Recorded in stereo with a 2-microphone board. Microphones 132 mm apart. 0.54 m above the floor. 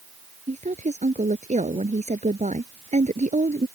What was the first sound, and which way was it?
A woman speaking, 65° right (ahead or behind).